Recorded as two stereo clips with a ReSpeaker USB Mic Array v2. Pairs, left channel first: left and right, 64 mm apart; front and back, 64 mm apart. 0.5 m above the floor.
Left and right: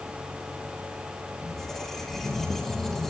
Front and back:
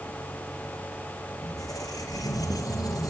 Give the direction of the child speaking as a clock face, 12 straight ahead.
I don't hear a child speaking.